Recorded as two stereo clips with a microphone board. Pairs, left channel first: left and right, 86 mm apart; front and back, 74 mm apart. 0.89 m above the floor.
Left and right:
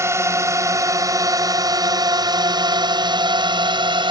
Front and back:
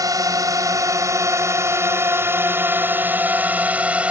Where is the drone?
145° right; by 4.1 s 105° right.